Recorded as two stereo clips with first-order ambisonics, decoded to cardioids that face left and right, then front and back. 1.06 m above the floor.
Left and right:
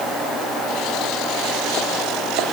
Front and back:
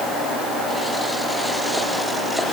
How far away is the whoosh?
I don't hear a whoosh.